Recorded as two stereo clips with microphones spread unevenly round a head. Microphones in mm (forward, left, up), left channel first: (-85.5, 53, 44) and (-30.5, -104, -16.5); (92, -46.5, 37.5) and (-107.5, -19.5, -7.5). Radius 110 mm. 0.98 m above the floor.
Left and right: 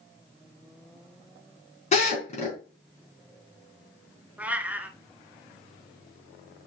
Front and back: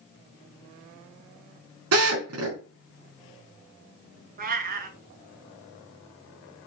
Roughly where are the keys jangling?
I don't hear keys jangling.